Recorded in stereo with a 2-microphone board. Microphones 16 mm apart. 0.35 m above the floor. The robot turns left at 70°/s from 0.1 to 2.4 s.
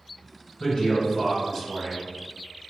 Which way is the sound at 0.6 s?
105° left.